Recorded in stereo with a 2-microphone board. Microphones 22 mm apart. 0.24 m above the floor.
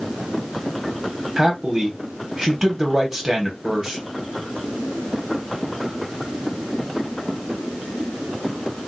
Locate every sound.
1.4 s a man speaking: 20° right (ahead or behind), 1.0 m